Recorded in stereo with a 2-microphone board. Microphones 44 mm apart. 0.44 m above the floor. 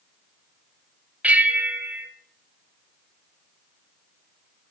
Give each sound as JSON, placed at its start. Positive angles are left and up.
{"t": 1.2, "sound": "a bell", "side_deg": -30, "distance_m": 0.9}